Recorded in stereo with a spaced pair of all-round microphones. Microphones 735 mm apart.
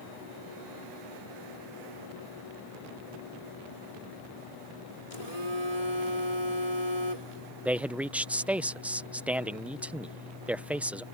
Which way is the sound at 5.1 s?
60° left (ahead or behind).